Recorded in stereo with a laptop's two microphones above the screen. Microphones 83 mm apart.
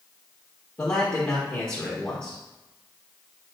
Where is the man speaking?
20° left (ahead or behind), 1.2 m.